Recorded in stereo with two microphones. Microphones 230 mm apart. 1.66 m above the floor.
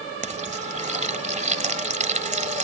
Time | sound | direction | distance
0.2 | frying | 30° right (ahead or behind) | ?